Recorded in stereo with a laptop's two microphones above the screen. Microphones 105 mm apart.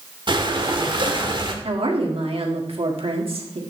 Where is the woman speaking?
65° right (ahead or behind), 1.9 m.